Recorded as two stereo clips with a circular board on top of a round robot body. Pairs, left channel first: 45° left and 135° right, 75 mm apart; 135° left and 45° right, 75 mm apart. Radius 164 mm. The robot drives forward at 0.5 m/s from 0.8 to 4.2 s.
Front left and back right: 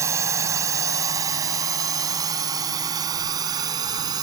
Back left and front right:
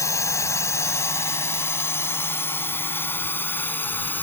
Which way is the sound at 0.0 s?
Straight behind.